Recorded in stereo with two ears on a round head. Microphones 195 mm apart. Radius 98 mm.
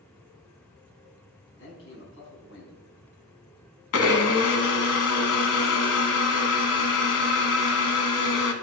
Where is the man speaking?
60° left (ahead or behind), 5.5 m.